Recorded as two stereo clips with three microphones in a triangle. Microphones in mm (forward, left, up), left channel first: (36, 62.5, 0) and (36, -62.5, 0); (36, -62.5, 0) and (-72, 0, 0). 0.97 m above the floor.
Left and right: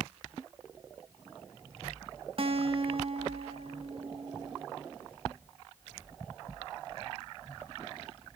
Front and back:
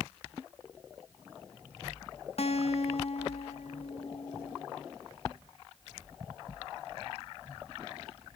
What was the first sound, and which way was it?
A guitar, 55° right.